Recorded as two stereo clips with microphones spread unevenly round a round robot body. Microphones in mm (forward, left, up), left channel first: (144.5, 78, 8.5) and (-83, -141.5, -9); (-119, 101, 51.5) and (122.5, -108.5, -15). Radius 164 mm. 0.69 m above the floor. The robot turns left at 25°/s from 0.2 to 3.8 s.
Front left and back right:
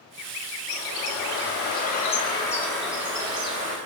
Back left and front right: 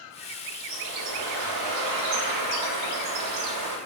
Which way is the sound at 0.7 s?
5° left.